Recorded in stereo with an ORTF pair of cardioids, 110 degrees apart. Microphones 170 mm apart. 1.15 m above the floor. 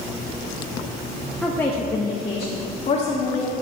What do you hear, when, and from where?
1.4 s a woman speaking: 5° left, 1.1 m; by 3.5 s 45° left, 2.5 m